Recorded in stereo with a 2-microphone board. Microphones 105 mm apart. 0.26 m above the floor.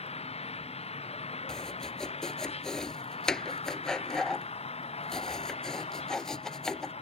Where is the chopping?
5° left (ahead or behind).